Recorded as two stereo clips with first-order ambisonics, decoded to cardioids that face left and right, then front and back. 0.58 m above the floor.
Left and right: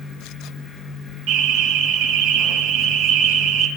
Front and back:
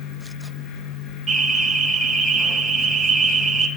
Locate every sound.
1.3 s an alarm: 85° right, 4 m